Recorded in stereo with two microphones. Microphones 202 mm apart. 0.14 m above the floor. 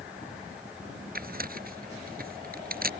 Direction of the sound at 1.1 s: 45° right (ahead or behind).